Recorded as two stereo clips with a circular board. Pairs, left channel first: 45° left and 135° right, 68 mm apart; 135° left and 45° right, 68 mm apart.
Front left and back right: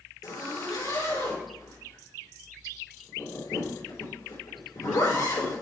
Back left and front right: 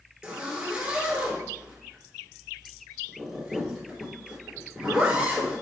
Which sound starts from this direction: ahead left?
A zipper, at 0.2 s.